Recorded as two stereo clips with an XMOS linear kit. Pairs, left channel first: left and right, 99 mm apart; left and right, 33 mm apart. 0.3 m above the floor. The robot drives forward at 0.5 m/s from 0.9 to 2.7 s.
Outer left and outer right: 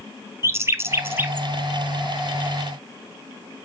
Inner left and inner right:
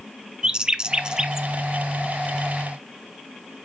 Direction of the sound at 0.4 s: 30° right (ahead or behind).